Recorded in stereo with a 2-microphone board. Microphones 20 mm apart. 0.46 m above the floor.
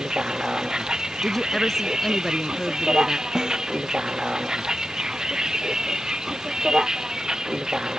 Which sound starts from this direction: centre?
A woman speaking, at 1.2 s.